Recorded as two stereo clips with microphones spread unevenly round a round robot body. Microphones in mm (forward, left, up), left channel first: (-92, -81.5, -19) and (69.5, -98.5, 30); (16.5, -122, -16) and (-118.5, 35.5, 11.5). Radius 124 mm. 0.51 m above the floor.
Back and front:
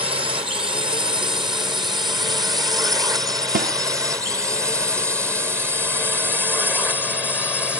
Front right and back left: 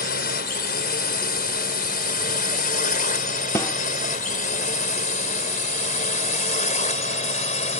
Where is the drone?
65° right; by 7.8 s 100° right.